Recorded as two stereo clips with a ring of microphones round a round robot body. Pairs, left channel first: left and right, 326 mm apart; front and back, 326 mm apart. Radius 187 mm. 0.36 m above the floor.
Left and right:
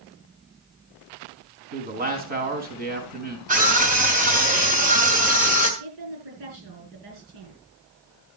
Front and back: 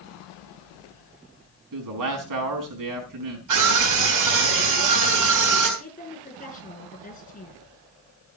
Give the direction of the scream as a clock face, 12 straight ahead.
5 o'clock.